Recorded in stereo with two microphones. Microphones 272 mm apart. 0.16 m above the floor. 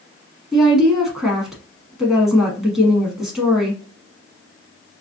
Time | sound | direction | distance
0.5 | a woman speaking | centre (ahead or behind) | 1.1 m